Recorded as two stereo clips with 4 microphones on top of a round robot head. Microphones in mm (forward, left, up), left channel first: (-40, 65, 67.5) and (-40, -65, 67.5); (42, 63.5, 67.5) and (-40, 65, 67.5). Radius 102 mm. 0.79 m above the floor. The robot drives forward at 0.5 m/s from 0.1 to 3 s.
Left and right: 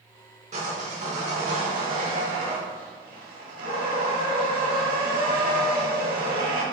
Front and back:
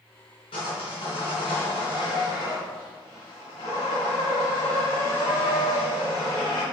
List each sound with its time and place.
0.5 s sawing: 40° right, 3 m; by 6.6 s 65° right, 2 m